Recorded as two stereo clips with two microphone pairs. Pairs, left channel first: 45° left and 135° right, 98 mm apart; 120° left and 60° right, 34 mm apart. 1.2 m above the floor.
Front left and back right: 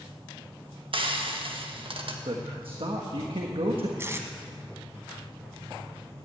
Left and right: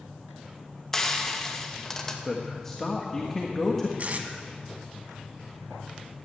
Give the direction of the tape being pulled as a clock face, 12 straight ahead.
3 o'clock.